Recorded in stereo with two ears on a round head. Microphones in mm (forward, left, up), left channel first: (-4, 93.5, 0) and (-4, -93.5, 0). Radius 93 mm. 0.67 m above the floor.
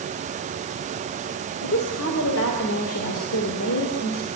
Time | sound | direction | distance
1.6 | a woman speaking | 65° left (ahead or behind) | 2.5 m